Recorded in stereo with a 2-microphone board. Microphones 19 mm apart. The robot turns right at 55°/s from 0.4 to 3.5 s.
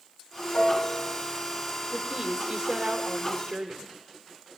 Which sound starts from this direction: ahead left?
A piano, at 0.5 s.